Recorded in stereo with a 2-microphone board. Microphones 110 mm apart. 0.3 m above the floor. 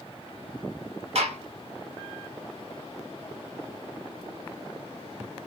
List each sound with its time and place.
1.1 s a gunshot: 70° right (ahead or behind), 0.7 m